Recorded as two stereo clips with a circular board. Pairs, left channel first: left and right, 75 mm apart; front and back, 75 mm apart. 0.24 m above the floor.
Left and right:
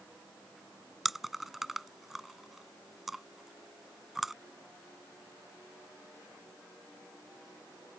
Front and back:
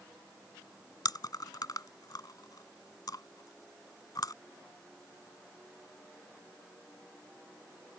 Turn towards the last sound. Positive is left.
turn(degrees=-5)